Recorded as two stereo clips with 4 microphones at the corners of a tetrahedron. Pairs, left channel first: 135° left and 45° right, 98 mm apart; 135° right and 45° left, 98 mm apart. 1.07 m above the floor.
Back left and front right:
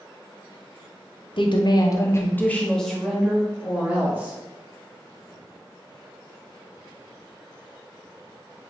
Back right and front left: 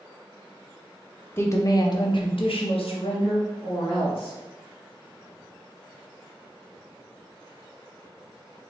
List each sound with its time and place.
1.4 s a woman speaking: 160° left, 0.7 m; by 4.3 s 115° right, 1.5 m